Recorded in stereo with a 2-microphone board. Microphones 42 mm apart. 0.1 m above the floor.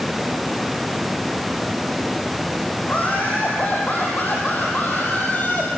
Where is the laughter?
40° left (ahead or behind), 5.5 m; by 5.7 s 45° left (ahead or behind), 3.5 m.